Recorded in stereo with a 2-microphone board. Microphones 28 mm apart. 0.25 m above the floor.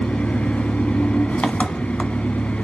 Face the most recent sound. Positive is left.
turn(degrees=60)  # may be behind; listen again after turning